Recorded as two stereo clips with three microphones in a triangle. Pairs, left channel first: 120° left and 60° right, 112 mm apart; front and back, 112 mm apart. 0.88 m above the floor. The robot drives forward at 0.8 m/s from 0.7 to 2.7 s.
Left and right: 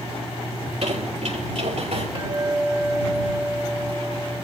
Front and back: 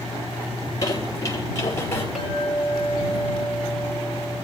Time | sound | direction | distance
0.6 | a squeak | 55° right | 5 m
2.1 | a clink | 90° right | 3.5 m